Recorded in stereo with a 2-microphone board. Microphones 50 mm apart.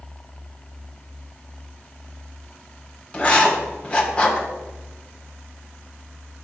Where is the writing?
25° left (ahead or behind), 1.6 m.